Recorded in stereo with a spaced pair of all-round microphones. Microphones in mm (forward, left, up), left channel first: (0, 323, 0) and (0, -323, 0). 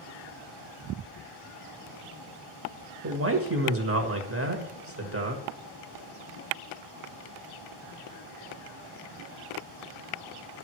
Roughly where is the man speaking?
Right.